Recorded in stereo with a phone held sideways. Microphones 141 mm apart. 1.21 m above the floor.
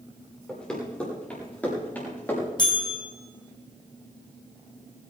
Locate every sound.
0.5 s running footsteps: 5° left (ahead or behind), 8 m; by 2.5 s 15° left (ahead or behind), 8 m
2.6 s a bell: 30° left (ahead or behind), 4.5 m